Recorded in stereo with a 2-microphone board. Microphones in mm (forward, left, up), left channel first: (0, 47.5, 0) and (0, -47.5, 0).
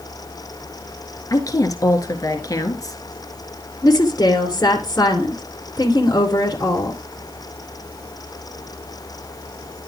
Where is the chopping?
No chopping in this recording.